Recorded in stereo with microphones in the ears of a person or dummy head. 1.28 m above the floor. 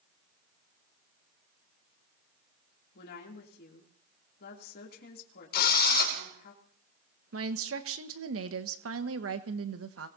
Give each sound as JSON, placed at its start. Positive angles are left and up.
{"t": 3.0, "sound": "a woman speaking", "side_deg": 60, "distance_m": 3.0}
{"t": 5.5, "sound": "a drill", "side_deg": 55, "distance_m": 2.5}
{"t": 7.3, "sound": "a woman speaking", "side_deg": -70, "distance_m": 1.2}